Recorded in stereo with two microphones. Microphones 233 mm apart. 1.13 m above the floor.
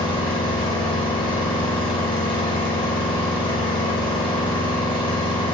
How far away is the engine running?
About 0.9 m.